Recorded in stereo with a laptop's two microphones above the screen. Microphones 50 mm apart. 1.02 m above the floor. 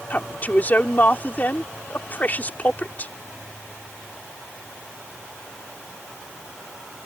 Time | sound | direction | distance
0.1 | a woman speaking | 30° left (ahead or behind) | ?